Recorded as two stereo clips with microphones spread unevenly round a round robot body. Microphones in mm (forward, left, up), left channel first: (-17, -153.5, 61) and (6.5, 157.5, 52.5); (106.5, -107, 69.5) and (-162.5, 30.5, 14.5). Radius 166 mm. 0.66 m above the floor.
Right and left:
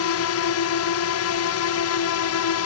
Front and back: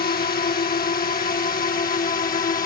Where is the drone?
85° right; by 2.7 s 90° right.